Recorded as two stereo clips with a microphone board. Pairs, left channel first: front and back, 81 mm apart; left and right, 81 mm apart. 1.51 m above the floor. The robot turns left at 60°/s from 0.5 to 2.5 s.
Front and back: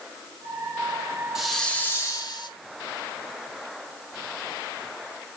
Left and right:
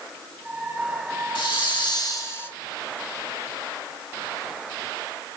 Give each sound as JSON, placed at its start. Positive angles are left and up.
{"t": 1.4, "sound": "a hiss", "azimuth_deg": 95, "distance_m": 2.5}